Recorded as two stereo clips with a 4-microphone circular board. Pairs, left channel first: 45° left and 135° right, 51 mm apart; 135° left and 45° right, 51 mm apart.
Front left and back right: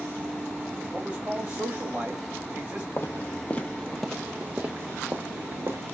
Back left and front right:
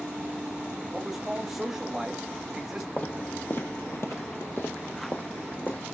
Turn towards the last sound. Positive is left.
turn(degrees=-170)